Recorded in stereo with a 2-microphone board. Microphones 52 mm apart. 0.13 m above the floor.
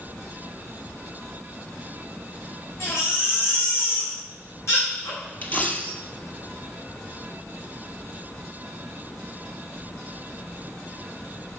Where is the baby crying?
60° left (ahead or behind), 5.5 m.